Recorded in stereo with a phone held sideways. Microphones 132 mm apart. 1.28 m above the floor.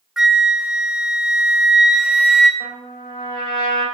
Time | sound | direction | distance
0.2 | a flute | 5° right (ahead or behind) | 0.8 m
2.6 | a trumpet | 35° left (ahead or behind) | 4 m